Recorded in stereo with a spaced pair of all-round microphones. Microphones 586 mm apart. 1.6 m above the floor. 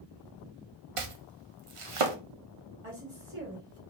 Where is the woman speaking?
55° right (ahead or behind), 2.5 m.